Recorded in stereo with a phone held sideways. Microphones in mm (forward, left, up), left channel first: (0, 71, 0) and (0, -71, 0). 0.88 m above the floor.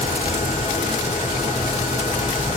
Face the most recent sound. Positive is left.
turn(degrees=60)  # may be behind; listen again after turning